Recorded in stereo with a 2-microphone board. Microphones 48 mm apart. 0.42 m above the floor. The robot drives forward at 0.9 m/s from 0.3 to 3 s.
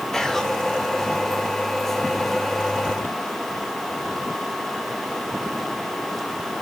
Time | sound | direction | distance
0.1 | whispering | 10° left (ahead or behind) | 1.3 m